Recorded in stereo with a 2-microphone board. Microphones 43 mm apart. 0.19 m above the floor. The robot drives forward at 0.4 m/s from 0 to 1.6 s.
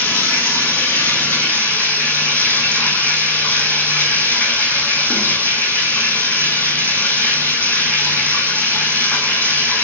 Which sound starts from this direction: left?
Running water, at 0.0 s.